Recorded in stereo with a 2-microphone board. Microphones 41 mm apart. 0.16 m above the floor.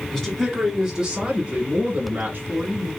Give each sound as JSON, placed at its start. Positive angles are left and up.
{"t": 0.1, "sound": "a man speaking", "side_deg": 15, "distance_m": 1.3}